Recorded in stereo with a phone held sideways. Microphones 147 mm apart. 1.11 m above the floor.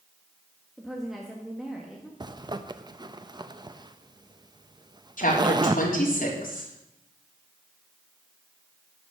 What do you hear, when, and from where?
0.8 s a woman speaking: centre (ahead or behind), 1.6 m
2.2 s a zipper: 30° right (ahead or behind), 0.6 m
5.2 s a woman speaking: 65° left (ahead or behind), 3.5 m